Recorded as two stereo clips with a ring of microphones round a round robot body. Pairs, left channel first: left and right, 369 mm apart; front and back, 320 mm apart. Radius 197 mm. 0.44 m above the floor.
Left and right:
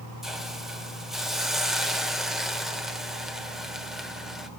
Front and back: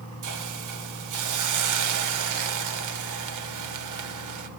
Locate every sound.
0.2 s a hiss: straight behind, 1.5 m